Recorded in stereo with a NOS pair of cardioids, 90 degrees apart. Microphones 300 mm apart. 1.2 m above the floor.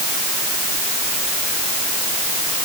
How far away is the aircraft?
I don't hear an aircraft.